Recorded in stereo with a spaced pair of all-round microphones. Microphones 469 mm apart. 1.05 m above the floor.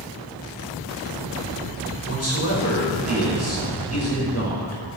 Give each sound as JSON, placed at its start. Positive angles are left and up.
{"t": 2.1, "sound": "a man speaking", "side_deg": 30, "distance_m": 5.5}